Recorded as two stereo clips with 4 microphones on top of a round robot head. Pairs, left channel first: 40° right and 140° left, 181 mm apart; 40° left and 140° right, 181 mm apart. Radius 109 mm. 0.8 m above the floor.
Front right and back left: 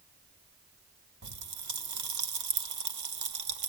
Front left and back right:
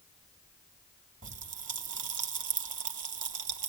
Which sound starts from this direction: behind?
A pop, at 1.2 s.